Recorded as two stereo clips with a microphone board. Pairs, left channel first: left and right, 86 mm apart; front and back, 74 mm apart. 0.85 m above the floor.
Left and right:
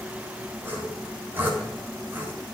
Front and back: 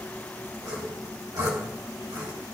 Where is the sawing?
155° right, 3.5 m.